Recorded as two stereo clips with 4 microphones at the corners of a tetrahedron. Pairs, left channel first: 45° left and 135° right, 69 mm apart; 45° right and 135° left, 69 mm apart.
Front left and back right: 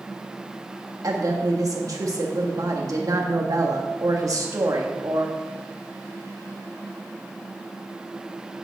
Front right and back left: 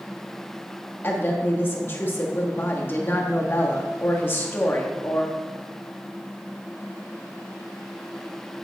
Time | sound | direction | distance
1.0 | a woman speaking | 100° right | 1.6 m